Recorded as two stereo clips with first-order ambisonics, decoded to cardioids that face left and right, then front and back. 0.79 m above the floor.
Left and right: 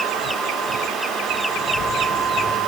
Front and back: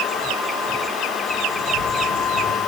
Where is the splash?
35° left, 6 m.